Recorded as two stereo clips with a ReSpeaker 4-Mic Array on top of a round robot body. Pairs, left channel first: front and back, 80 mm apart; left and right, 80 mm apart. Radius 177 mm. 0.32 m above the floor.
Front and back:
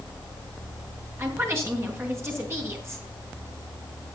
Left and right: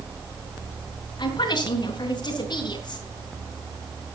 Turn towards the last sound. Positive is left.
turn(degrees=120)